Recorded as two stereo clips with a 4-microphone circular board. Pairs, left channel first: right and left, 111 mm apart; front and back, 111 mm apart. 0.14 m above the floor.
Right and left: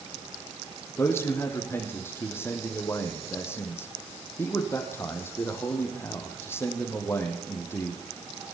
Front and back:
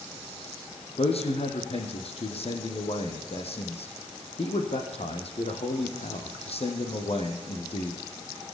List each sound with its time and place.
1.0 s a man speaking: 20° right, 4.5 m